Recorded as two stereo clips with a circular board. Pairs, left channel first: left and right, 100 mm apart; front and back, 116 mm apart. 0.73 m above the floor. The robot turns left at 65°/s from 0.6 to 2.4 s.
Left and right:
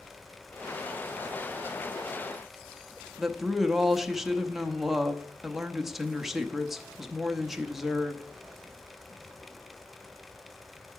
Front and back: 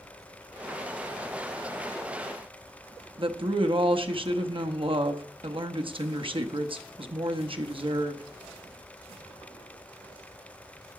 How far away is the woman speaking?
About 0.7 m.